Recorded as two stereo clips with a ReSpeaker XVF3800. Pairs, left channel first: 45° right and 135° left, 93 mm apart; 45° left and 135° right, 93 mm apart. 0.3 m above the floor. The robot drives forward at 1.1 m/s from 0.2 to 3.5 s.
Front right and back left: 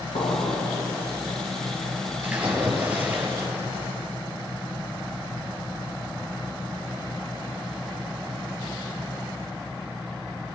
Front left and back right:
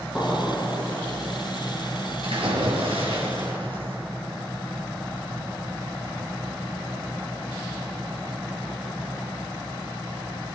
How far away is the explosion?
About 4 m.